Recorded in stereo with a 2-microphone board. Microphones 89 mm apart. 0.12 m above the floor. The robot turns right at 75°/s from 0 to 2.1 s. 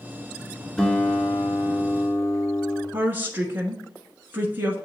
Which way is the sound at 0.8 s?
5° left.